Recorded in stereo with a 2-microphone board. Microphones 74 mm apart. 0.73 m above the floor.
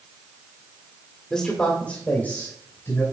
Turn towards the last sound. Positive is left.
turn(degrees=35)  # may be behind; listen again after turning